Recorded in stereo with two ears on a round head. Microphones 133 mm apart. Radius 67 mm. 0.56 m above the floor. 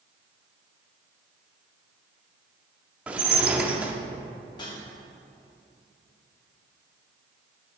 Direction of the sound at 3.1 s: 10° right (ahead or behind).